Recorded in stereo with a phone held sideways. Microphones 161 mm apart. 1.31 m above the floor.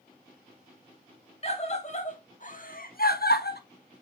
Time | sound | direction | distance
1.4 | a scream | 40° left (ahead or behind) | 2.5 m